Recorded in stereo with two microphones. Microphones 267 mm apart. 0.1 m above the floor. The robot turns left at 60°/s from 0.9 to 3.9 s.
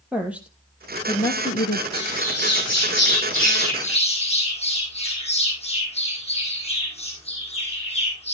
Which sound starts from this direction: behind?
A woman speaking, at 0.1 s.